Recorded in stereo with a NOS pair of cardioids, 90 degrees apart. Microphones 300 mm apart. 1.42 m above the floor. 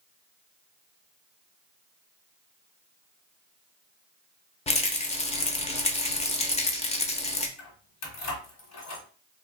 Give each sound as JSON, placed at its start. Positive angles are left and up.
{"t": 4.7, "sound": "a rattle", "azimuth_deg": 25, "distance_m": 0.7}
{"t": 7.6, "sound": "keys jangling", "azimuth_deg": 70, "distance_m": 1.6}